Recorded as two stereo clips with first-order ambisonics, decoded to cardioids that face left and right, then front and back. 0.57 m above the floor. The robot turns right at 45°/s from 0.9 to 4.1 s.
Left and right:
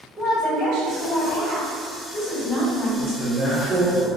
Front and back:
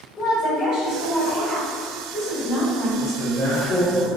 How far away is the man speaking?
About 1.3 m.